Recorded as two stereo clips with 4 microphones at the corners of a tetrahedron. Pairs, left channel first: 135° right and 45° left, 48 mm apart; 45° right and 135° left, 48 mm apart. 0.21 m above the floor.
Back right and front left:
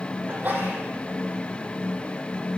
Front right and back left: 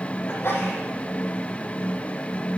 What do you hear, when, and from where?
0.3 s a sneeze: 10° right, 8 m